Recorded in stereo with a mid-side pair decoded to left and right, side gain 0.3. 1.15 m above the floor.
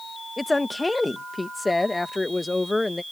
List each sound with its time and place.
0.4 s a woman speaking: 25° left